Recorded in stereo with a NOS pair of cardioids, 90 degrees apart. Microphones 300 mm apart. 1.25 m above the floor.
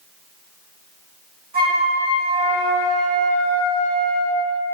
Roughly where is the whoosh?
No whoosh in this recording.